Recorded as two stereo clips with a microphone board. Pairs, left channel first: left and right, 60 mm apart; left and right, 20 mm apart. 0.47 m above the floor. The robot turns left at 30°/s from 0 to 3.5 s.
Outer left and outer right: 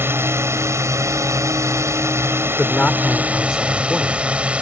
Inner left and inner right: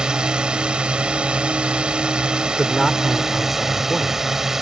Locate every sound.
0.0 s a drone: 50° right; by 4.6 s 155° right
2.5 s a man speaking: 30° left; by 4.2 s straight ahead